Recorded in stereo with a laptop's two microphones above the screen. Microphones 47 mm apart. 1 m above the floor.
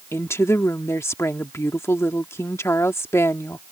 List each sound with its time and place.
0.1 s a woman speaking: 70° left (ahead or behind)